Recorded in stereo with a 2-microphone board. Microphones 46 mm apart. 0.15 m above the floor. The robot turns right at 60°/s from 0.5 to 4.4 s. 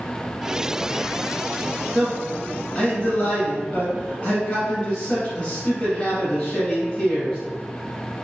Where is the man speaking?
5° right, 1.4 m; by 7.4 s 140° left, 1.4 m.